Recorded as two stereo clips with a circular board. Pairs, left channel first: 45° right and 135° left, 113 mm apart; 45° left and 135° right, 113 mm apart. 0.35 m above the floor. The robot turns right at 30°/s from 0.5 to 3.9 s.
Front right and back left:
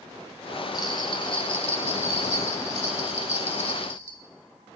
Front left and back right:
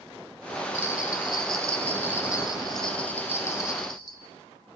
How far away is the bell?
About 1.0 m.